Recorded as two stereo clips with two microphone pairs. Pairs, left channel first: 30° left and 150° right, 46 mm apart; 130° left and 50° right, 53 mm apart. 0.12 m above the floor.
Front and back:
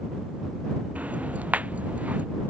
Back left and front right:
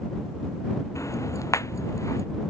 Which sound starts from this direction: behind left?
Ticking, at 0.9 s.